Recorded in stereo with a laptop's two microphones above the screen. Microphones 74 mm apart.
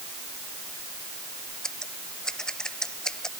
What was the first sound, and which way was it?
Scissors, 10° left (ahead or behind).